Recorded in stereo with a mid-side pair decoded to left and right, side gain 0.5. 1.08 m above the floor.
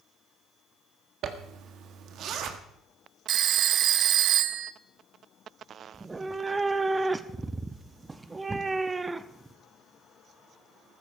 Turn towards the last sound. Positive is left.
turn(degrees=-25)